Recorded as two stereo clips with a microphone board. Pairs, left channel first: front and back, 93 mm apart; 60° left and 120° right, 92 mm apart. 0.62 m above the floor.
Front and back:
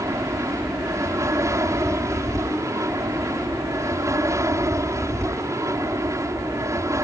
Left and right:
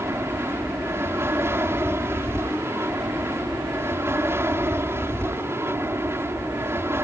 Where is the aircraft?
160° right.